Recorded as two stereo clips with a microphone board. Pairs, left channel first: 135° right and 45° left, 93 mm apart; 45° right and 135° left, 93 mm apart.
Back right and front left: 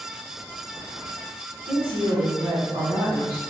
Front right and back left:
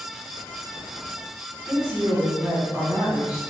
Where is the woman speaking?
55° left, 1.6 m.